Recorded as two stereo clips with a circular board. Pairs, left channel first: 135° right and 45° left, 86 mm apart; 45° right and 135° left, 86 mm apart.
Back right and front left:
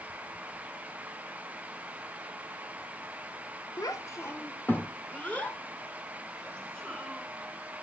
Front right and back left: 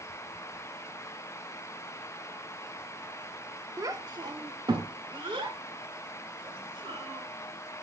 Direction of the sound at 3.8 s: Straight behind.